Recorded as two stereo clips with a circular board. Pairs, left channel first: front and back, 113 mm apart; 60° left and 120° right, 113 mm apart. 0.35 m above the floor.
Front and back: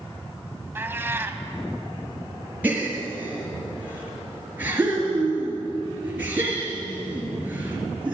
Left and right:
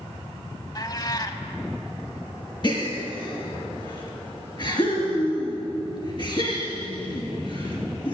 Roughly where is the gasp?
Left.